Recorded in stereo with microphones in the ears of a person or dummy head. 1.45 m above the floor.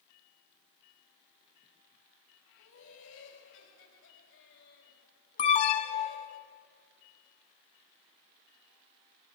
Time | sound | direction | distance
2.6 | laughter | 70° left (ahead or behind) | 4.5 m
5.4 | an alarm | 40° left (ahead or behind) | 1.0 m